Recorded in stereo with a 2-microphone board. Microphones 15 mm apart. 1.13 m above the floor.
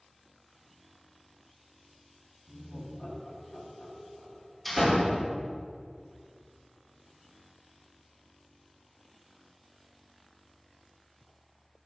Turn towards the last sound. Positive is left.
turn(degrees=5)  # may be behind; listen again after turning